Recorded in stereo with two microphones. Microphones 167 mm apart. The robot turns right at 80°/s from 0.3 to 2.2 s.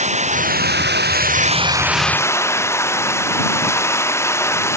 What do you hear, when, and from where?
0.0 s running water: 135° right; by 4.8 s 15° left